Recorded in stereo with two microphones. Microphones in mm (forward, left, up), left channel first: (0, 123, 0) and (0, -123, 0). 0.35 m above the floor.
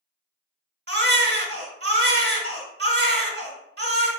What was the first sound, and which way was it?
A baby crying, 45° right (ahead or behind).